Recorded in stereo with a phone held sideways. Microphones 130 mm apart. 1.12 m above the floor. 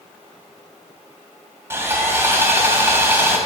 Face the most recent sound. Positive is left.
turn(degrees=-20)  # may be behind; listen again after turning